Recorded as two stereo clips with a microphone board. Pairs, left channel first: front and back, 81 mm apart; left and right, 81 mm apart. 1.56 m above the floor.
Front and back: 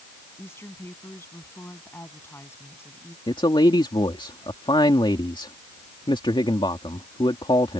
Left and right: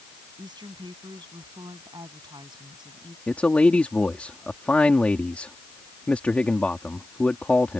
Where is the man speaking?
20° left.